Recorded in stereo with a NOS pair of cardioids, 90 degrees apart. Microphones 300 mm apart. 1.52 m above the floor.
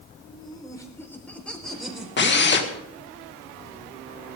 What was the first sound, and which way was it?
Laughter, 20° left.